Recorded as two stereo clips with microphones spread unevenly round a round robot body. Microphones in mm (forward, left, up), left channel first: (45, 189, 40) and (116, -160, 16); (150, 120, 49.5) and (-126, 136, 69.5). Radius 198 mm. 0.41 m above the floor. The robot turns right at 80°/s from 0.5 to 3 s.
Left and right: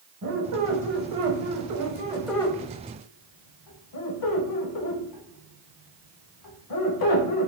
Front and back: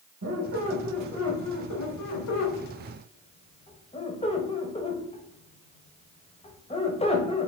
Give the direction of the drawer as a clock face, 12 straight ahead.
No drawer in this recording.